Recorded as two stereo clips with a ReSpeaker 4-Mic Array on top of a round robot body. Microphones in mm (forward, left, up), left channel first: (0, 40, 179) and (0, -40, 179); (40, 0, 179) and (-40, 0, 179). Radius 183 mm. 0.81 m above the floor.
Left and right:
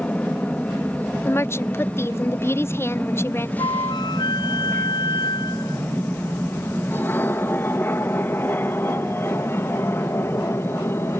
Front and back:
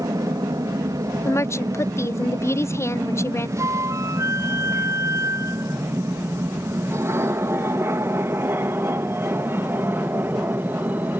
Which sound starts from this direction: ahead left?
A woman speaking, at 1.2 s.